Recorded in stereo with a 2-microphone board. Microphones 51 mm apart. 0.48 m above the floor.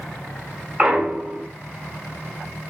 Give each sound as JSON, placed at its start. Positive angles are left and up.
{"t": 0.8, "sound": "a clunk", "side_deg": -15, "distance_m": 1.8}